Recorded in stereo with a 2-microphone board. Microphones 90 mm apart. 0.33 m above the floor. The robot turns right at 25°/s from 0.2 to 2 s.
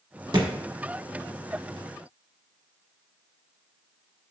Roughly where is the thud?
Right.